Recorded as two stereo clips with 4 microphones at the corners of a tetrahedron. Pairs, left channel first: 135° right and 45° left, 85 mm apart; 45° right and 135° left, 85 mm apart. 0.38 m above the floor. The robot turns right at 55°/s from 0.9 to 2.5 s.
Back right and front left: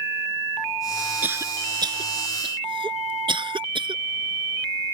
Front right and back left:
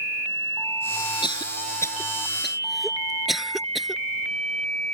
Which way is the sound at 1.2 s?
25° right.